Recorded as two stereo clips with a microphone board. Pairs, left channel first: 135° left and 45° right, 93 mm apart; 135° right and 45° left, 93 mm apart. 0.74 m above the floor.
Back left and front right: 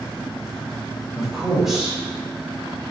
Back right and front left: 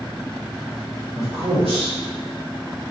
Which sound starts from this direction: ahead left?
A man speaking, at 1.1 s.